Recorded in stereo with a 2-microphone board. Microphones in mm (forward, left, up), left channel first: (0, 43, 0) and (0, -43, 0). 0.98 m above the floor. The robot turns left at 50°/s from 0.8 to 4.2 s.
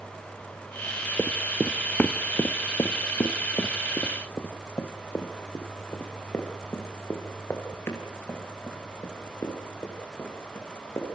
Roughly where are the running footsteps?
Centre.